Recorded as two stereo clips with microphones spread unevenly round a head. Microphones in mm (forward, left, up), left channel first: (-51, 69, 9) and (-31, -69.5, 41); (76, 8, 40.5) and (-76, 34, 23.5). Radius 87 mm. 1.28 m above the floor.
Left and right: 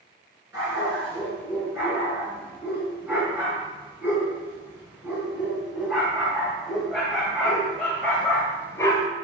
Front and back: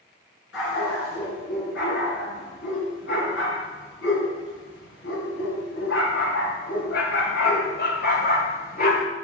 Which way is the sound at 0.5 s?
5° right.